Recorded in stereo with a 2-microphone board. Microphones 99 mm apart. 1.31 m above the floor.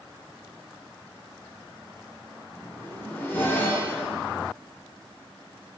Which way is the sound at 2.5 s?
20° left (ahead or behind).